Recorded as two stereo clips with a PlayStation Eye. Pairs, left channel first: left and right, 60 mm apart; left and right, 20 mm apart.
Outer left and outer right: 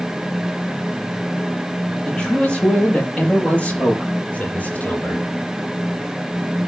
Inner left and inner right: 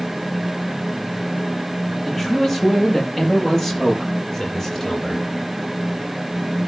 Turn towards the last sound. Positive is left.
turn(degrees=30)  # may be behind; listen again after turning